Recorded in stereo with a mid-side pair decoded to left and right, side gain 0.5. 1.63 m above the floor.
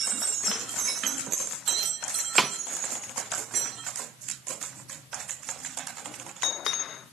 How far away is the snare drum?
About 0.6 m.